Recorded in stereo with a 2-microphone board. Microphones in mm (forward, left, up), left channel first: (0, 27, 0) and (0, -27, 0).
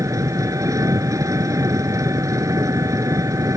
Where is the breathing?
I don't hear breathing.